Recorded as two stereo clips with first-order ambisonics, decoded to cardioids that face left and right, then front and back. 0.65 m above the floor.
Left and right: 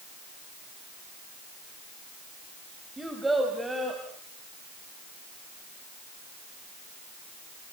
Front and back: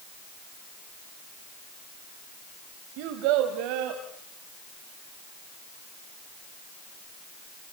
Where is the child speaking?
175° right, 2.5 m; by 4.0 s 170° right, 3 m.